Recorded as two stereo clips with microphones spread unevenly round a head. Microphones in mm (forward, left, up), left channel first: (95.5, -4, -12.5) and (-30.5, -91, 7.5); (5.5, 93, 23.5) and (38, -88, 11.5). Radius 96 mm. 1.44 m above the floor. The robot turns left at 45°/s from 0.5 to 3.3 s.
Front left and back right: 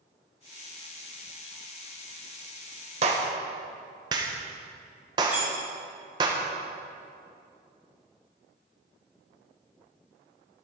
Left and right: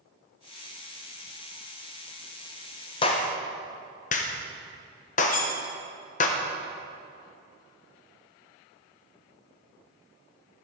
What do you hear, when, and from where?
3.0 s a clap: 165° left, 0.8 m; by 6.3 s 150° left, 0.8 m
5.3 s cutlery clinking: 140° left, 1.2 m